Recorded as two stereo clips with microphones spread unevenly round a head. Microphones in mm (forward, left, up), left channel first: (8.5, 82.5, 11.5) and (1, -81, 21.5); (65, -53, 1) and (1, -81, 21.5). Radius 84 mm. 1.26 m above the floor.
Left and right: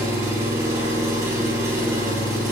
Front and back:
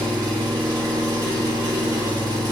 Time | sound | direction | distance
0.0 | an engine running | 165° right | 1.6 m